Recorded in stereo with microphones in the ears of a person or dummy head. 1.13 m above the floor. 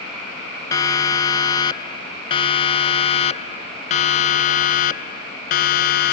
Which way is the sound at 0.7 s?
15° left (ahead or behind).